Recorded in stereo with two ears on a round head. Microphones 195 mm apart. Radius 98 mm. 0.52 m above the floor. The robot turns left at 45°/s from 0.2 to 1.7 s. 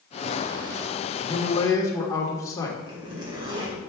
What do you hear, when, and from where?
1.2 s a man speaking: 30° left (ahead or behind), 1.3 m; by 2.8 s 15° left (ahead or behind), 1.3 m
2.9 s a zipper: 25° right (ahead or behind), 2.5 m